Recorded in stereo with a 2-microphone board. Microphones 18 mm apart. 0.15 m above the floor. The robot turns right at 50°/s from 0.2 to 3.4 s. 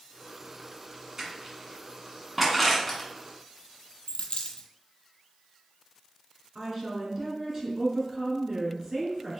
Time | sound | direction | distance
1.2 | crushing | 25° right (ahead or behind) | 1.4 m
4.1 | a dropped coin | 85° left | 0.5 m
6.5 | a woman speaking | 30° right (ahead or behind) | 1.8 m